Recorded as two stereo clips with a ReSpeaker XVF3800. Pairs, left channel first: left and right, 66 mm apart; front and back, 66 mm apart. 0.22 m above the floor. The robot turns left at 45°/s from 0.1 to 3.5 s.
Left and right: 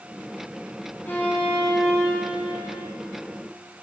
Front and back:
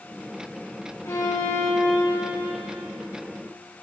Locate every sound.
1.1 s a violin: 35° left, 5.5 m; by 2.8 s 45° right, 5.5 m